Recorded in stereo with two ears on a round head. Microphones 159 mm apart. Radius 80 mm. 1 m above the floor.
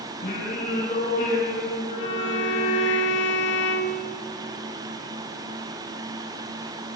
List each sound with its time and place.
0.2 s singing: 50° left (ahead or behind), 7 m
2.0 s a violin: 70° left (ahead or behind), 1.9 m